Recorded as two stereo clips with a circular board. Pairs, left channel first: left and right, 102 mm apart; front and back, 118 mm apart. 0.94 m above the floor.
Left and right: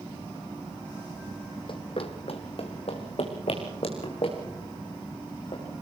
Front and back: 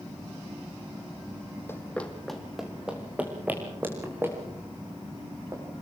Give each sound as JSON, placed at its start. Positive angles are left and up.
{"t": 1.7, "sound": "running footsteps", "azimuth_deg": 65, "distance_m": 2.0}